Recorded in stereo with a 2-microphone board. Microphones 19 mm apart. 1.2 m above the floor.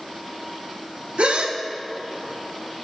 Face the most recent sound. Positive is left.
turn(degrees=-85)